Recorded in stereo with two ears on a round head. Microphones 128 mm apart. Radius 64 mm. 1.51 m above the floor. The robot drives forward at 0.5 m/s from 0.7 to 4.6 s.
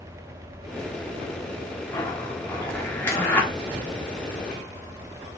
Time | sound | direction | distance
1.9 | a zipper | 20° left (ahead or behind) | 1.0 m